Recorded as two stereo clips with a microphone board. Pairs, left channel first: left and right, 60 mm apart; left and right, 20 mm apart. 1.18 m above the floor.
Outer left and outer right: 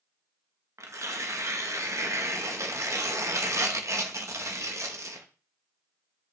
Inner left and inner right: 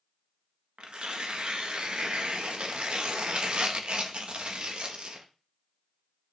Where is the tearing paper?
55° right (ahead or behind), 0.8 m.